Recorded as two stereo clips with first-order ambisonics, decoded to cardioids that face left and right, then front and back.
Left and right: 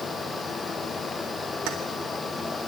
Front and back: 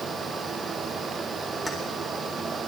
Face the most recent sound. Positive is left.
turn(degrees=-85)